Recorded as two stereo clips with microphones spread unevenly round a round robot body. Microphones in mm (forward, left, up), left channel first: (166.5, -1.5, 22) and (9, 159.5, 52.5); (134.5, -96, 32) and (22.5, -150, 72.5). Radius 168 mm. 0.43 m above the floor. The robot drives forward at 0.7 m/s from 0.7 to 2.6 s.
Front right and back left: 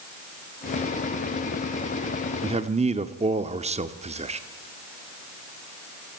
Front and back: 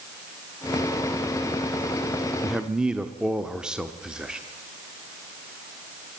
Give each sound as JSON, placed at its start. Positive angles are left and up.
{"t": 2.4, "sound": "a man speaking", "azimuth_deg": 75, "distance_m": 1.0}